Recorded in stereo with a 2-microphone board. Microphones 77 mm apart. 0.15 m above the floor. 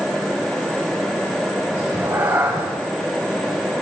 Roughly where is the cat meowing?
Right.